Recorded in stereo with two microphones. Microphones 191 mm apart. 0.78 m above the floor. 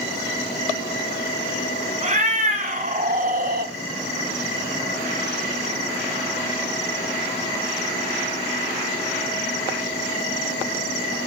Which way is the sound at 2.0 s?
40° right (ahead or behind).